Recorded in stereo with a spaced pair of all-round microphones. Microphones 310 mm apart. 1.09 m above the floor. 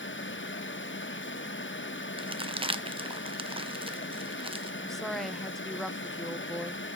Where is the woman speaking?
Centre (ahead or behind), 0.7 m.